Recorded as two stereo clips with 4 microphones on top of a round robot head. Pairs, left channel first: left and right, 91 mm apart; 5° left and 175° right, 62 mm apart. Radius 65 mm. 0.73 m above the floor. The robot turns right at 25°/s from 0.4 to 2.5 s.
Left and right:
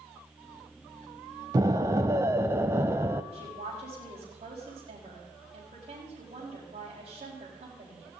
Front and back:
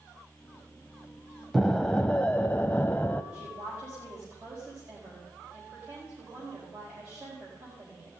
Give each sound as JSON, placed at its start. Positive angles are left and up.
{"t": 1.5, "sound": "an explosion", "azimuth_deg": -80, "distance_m": 0.5}
{"t": 3.3, "sound": "a woman speaking", "azimuth_deg": -115, "distance_m": 4.5}